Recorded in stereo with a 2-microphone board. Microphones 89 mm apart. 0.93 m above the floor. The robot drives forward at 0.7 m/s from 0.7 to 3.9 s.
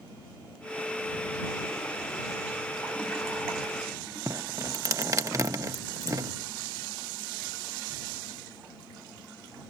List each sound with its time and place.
4.3 s dripping: 40° right (ahead or behind)